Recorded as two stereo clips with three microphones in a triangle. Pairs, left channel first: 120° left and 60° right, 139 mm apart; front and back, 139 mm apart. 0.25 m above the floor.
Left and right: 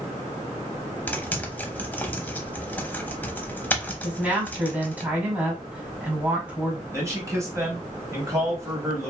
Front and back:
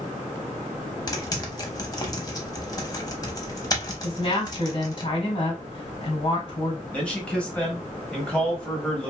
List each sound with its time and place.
1.1 s typing on a keyboard: 45° left, 0.6 m
4.0 s a woman speaking: 15° left, 1.3 m
6.9 s a man speaking: 65° right, 1.0 m